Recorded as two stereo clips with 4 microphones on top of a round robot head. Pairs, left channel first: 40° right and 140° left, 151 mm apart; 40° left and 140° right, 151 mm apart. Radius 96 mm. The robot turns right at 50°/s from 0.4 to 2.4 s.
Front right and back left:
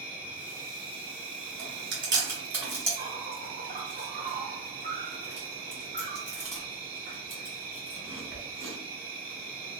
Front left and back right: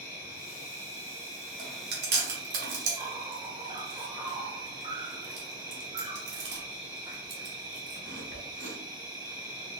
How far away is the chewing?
About 1.2 m.